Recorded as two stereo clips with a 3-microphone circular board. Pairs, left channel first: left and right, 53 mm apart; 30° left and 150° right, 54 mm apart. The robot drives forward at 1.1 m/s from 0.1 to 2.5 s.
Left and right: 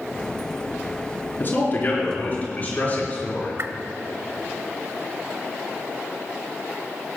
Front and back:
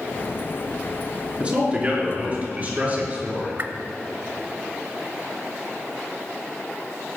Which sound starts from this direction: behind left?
A man speaking, at 1.4 s.